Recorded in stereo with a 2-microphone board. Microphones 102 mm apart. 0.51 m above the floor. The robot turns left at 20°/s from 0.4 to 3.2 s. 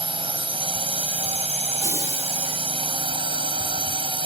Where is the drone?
65° right; by 4.3 s 120° right.